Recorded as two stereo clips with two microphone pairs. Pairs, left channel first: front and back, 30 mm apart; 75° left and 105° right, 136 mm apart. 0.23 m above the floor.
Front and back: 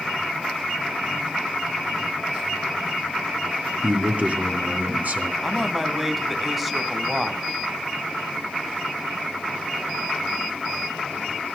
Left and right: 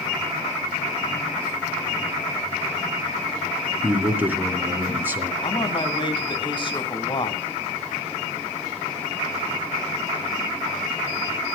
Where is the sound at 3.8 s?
175° right, 3 m.